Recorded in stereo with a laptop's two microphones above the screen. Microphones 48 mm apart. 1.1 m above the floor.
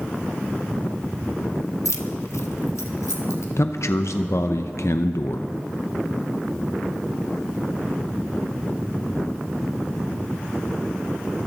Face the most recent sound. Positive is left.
turn(degrees=70)  # may be behind; listen again after turning